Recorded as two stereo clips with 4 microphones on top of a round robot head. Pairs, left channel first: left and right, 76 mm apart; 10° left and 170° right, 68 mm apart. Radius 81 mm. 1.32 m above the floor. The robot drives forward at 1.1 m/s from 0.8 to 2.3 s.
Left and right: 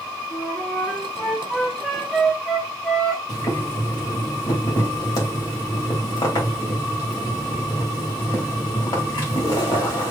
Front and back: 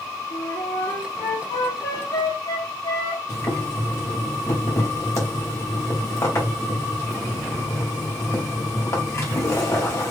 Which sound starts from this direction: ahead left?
Boiling, at 3.3 s.